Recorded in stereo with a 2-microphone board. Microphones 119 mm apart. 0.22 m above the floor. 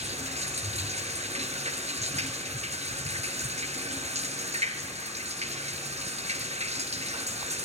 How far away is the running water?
About 1.6 m.